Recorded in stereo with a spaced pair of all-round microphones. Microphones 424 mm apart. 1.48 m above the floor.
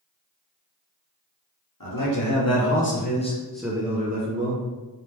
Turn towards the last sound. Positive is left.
turn(degrees=-40)  # may be behind; listen again after turning